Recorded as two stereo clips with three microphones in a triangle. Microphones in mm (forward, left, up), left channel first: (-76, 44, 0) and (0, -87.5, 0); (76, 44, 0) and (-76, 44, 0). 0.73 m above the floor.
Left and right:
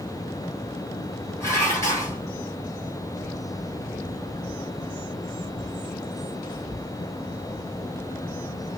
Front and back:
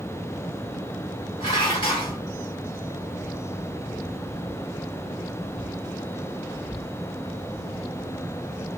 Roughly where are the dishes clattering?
Ahead left.